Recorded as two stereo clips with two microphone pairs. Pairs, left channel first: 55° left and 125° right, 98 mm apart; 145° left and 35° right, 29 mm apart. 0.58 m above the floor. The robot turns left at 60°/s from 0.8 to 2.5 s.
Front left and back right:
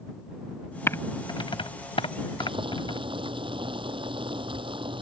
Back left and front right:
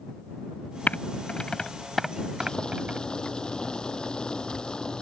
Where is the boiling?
150° right; by 5.0 s 155° right.